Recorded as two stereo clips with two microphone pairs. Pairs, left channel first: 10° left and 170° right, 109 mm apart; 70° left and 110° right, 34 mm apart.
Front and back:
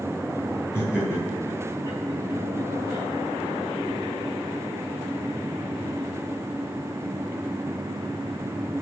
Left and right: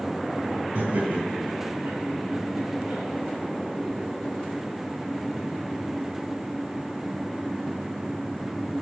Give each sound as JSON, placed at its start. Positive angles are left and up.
{"t": 0.8, "sound": "laughter", "azimuth_deg": -95, "distance_m": 3.0}